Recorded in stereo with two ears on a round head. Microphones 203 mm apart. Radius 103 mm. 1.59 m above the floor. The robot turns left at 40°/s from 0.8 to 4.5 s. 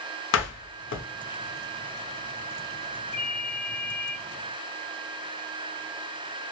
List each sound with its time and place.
0.3 s a door slam: 55° left (ahead or behind), 0.6 m
3.1 s a ringtone: 45° left, 1.7 m; by 4.2 s 5° left, 1.7 m